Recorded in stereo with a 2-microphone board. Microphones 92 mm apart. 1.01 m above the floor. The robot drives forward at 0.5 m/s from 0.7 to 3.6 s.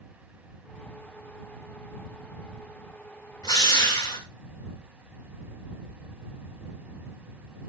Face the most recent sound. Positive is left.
turn(degrees=45)  # may be behind; listen again after turning